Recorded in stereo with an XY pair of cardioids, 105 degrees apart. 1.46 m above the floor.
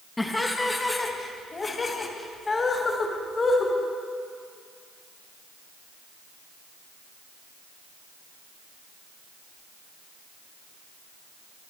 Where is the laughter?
15° left, 2 m; by 3.7 s 40° left, 4 m.